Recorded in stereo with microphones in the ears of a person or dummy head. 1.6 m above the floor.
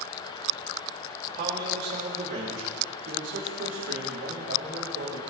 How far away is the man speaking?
About 3 m.